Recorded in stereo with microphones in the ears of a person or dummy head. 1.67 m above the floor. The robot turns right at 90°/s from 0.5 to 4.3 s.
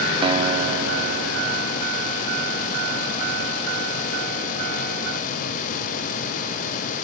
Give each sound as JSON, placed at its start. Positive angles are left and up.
{"t": 0.2, "sound": "a guitar", "azimuth_deg": -150}